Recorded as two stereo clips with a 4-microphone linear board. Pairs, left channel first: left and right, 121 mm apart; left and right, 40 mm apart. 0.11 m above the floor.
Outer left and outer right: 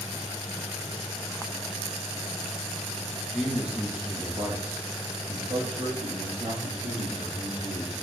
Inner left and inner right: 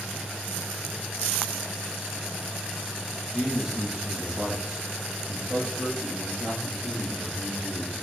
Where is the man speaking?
Centre (ahead or behind), 1.8 m; by 8.0 s 65° right (ahead or behind), 4.5 m.